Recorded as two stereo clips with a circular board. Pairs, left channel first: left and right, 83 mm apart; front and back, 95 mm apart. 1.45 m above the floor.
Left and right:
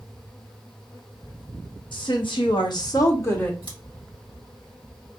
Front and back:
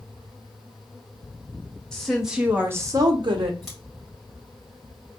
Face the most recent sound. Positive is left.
turn(degrees=90)